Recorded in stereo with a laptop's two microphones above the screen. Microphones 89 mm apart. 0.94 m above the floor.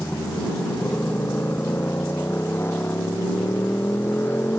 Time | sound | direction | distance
0.0 | a motorcycle | 25° left (ahead or behind) | ?